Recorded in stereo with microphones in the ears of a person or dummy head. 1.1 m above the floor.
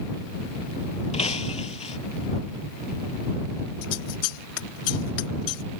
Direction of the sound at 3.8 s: 75° left (ahead or behind).